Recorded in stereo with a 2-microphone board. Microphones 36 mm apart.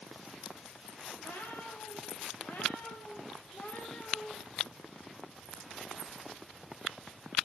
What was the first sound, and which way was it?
A cat meowing, 75° left (ahead or behind).